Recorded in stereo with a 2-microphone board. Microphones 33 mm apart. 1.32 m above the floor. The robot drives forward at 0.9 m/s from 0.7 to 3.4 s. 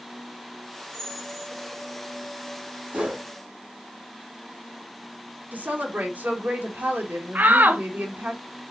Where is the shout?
70° right (ahead or behind), 0.9 m.